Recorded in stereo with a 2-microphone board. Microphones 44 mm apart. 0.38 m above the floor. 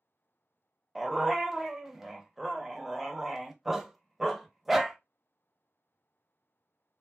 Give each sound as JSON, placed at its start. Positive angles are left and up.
{"t": 0.9, "sound": "a dog barking", "side_deg": -5, "distance_m": 0.6}